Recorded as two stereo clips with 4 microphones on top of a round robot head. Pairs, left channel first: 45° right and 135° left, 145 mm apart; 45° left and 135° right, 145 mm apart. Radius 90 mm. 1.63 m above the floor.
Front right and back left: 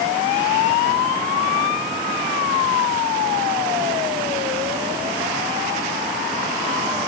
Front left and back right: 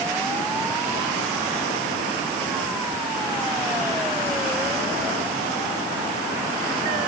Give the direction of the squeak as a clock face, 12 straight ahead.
I don't hear a squeak.